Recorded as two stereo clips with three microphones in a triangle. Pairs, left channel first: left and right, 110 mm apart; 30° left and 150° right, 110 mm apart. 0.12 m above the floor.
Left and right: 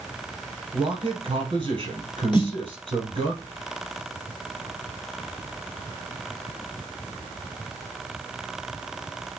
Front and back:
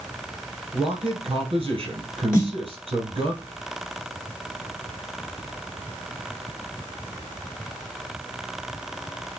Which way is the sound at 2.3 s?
85° left.